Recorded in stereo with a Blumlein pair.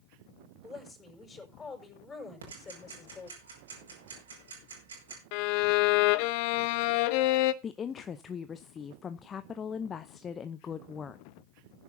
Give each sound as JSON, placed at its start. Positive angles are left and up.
{"t": 0.6, "sound": "a woman speaking", "azimuth_deg": 10, "distance_m": 6.0}
{"t": 2.4, "sound": "ticking", "azimuth_deg": -70, "distance_m": 5.5}
{"t": 5.3, "sound": "a violin", "azimuth_deg": 45, "distance_m": 0.8}
{"t": 7.6, "sound": "a woman speaking", "azimuth_deg": 20, "distance_m": 0.7}